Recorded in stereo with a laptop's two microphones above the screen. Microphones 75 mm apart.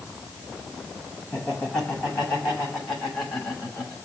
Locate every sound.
1.3 s laughter: 10° left (ahead or behind), 8 m; by 4.0 s 15° left (ahead or behind), 6 m